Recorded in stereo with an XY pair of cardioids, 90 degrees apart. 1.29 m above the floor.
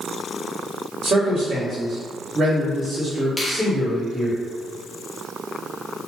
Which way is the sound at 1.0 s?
70° right.